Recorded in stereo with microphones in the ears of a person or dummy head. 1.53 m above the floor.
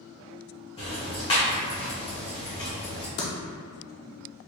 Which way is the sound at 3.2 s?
35° left (ahead or behind).